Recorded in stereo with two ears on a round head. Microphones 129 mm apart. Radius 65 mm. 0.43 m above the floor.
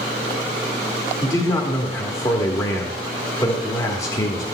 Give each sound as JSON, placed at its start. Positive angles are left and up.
{"t": 1.2, "sound": "a man speaking", "side_deg": 25, "distance_m": 1.1}